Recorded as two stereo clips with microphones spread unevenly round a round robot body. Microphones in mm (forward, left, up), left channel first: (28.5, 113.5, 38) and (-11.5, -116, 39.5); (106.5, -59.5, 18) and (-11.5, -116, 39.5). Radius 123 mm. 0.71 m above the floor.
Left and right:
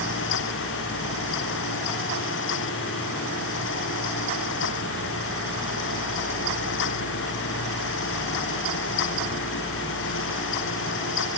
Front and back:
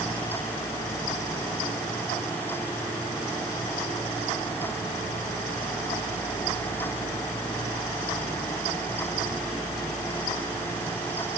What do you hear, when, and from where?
Only background noise.